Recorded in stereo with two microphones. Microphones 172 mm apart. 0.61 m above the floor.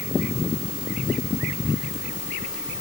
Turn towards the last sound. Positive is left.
No sound to turn to.